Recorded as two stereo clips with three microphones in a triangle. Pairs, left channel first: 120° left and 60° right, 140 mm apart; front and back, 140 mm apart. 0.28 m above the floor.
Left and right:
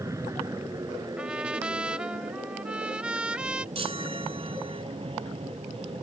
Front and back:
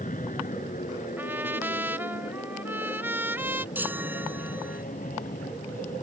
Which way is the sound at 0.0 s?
5° left.